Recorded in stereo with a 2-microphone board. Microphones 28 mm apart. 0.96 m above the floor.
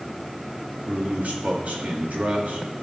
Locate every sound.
0.9 s a man speaking: 70° right (ahead or behind), 2 m